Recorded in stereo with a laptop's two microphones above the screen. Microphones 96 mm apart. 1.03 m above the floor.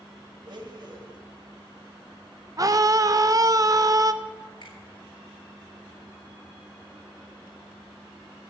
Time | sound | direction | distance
0.5 | a blender | 55° right (ahead or behind) | 2 m
2.6 | a scream | 40° right (ahead or behind) | 0.7 m
4.6 | a finger snap | 55° left (ahead or behind) | 3.5 m